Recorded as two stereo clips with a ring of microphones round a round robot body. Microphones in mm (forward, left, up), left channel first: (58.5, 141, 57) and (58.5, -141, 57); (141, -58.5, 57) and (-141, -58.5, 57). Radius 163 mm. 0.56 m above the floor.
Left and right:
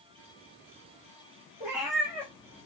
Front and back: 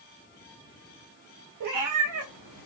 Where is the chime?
No chime in this recording.